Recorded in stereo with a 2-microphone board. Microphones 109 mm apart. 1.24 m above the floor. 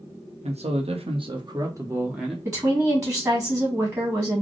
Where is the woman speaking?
30° right (ahead or behind), 1.9 m.